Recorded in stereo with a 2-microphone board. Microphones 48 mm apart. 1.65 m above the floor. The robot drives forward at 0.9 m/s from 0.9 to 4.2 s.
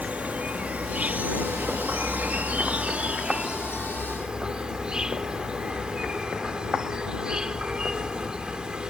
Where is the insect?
30° right (ahead or behind); by 8.9 s 15° right (ahead or behind).